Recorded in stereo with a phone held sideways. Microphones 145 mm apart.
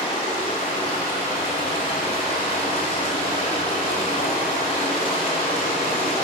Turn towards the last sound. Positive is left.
turn(degrees=70)  # may be behind; listen again after turning